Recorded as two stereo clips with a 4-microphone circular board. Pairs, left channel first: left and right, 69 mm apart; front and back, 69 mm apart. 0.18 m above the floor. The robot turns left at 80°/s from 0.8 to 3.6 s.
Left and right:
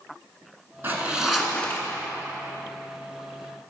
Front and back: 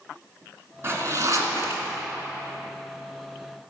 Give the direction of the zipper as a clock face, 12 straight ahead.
5 o'clock.